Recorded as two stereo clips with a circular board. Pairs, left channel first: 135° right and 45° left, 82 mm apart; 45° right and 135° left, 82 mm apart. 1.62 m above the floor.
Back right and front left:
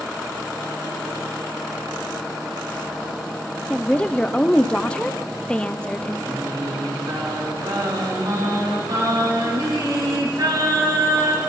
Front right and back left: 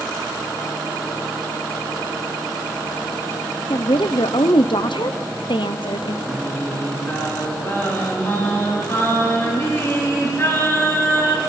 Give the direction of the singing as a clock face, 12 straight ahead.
12 o'clock.